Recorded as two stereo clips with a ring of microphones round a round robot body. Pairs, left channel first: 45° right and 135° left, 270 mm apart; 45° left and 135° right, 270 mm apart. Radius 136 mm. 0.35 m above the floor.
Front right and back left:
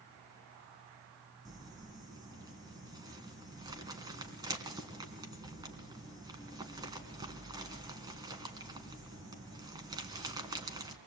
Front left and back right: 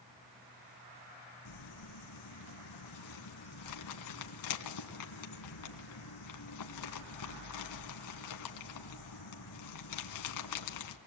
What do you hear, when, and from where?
1.4 s crumpling: 60° left, 3 m